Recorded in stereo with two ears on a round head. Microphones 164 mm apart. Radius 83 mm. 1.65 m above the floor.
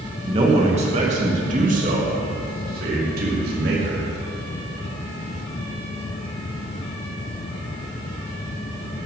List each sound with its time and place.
0.3 s a man speaking: 30° right (ahead or behind), 2.5 m; by 4.0 s 55° right (ahead or behind), 4.5 m